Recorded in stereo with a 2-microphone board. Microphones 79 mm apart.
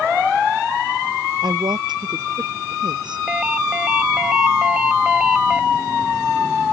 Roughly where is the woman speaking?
Right.